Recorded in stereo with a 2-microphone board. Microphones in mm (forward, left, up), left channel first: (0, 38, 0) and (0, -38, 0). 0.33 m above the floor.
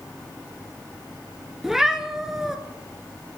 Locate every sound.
1.6 s a cat meowing: 5° right (ahead or behind), 0.7 m